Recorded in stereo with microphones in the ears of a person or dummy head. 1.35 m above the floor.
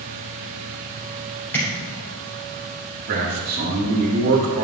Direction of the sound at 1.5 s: 10° left (ahead or behind).